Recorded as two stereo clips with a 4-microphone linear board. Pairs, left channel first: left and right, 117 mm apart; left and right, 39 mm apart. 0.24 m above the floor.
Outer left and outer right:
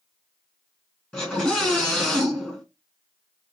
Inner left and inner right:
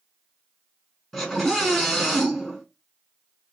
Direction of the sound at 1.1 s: 10° left (ahead or behind).